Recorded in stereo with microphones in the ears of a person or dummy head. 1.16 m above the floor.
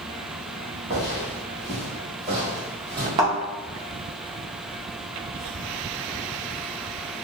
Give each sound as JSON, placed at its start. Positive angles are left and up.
{"t": 0.9, "sound": "footsteps", "side_deg": -30, "distance_m": 1.4}
{"t": 3.2, "sound": "a thud", "side_deg": -35, "distance_m": 0.8}